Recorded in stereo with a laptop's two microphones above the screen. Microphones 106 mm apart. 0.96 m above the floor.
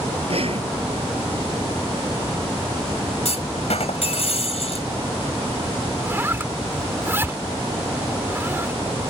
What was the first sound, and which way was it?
Breathing, 60° right (ahead or behind).